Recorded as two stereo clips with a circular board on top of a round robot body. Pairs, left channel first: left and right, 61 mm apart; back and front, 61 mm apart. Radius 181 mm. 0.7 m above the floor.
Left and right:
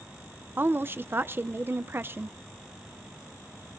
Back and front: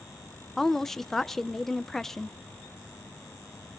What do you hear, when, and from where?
0.6 s a woman speaking: 100° right, 0.8 m